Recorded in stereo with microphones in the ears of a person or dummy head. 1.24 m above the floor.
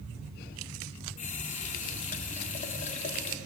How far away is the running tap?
About 1.7 m.